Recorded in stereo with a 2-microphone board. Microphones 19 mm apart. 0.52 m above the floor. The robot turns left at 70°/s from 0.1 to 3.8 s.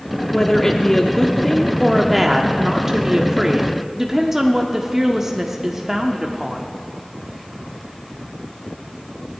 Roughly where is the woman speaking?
Centre.